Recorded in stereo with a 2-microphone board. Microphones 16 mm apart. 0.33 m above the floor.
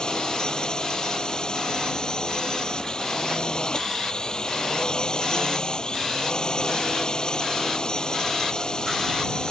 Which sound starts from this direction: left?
A drone, at 0.0 s.